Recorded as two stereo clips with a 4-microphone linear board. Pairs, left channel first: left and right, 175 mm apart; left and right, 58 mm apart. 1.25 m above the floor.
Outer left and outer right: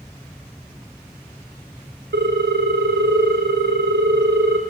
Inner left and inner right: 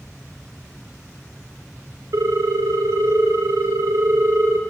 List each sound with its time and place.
2.1 s a ringtone: 75° right (ahead or behind), 0.6 m